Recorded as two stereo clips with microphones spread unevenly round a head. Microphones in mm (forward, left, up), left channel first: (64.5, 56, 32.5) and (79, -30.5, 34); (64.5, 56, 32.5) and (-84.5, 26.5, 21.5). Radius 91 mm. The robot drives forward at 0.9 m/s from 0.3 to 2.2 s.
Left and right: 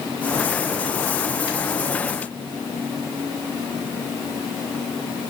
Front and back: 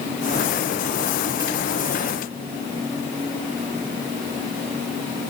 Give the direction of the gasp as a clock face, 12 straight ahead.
No gasp in this recording.